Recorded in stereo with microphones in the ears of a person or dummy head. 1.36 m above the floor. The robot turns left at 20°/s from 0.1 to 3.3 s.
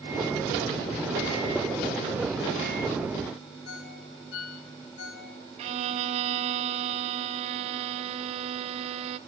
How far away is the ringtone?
About 3 m.